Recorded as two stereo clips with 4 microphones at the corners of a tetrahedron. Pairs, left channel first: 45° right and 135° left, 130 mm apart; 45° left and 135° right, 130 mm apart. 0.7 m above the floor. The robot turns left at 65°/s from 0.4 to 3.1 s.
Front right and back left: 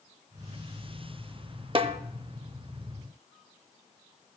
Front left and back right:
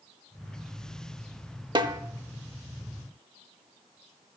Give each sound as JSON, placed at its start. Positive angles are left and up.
{"t": 1.8, "sound": "a snare drum", "azimuth_deg": 180, "distance_m": 0.6}